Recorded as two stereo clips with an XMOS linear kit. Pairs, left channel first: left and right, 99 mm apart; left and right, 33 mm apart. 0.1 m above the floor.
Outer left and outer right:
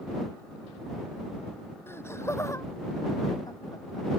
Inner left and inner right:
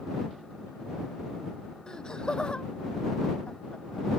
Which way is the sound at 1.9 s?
25° left (ahead or behind).